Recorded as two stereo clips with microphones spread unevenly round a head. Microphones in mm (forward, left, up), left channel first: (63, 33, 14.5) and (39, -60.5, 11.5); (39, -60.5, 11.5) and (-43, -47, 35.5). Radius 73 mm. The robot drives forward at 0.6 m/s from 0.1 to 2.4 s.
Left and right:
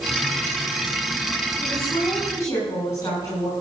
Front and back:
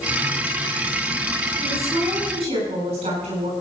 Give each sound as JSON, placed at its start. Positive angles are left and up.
{"t": 1.6, "sound": "a woman speaking", "azimuth_deg": 145, "distance_m": 6.5}